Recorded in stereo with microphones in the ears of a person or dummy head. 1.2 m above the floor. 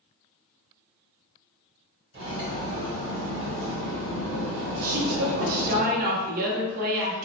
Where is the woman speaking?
50° right (ahead or behind), 0.8 m.